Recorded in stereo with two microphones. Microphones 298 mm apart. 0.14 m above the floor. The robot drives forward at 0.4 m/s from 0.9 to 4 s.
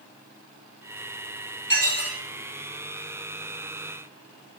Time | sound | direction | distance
1.7 | dishes clattering | 35° right (ahead or behind) | 1.6 m